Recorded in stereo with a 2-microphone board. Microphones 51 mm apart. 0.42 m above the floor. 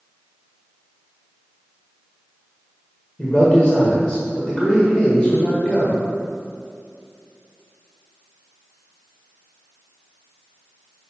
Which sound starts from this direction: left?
A man speaking, at 3.2 s.